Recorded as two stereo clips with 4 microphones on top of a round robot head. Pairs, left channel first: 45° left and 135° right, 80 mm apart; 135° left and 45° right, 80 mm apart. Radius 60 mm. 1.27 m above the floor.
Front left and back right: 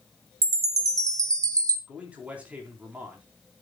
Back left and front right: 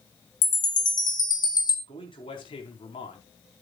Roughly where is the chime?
Behind.